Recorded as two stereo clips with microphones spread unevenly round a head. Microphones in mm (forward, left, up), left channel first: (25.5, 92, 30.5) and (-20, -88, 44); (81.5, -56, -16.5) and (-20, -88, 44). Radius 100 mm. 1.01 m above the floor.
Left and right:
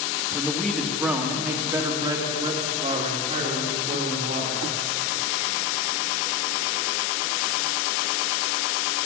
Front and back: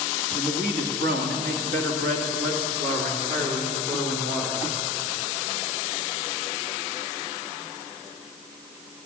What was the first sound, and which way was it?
A man speaking, 160° left.